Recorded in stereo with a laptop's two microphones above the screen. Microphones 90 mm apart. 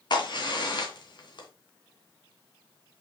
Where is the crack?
55° left (ahead or behind), 2.5 m.